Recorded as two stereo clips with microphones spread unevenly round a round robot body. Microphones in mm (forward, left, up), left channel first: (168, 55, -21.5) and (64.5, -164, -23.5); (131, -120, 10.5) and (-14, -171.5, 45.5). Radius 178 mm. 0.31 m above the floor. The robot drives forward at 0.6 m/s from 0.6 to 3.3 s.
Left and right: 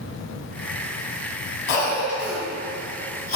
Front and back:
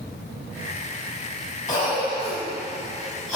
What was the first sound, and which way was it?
A cough, 75° left.